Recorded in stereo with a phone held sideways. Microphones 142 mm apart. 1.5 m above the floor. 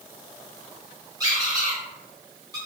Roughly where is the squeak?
Right.